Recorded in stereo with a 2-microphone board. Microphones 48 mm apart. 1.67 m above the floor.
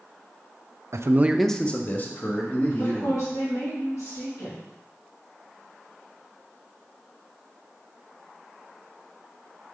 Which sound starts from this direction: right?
A man speaking, at 0.9 s.